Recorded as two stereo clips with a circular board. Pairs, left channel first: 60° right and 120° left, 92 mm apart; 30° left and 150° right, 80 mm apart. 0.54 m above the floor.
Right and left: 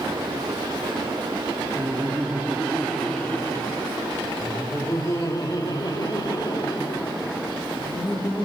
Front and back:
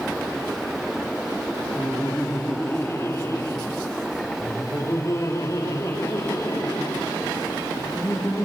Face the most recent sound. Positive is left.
turn(degrees=-25)